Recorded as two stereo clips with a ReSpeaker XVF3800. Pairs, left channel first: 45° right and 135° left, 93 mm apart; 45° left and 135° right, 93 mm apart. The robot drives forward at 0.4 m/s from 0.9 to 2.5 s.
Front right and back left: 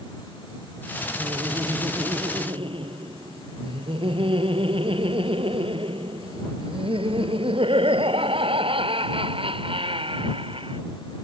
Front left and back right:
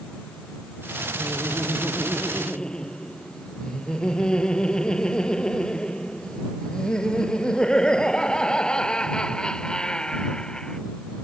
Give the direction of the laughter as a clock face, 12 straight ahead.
8 o'clock.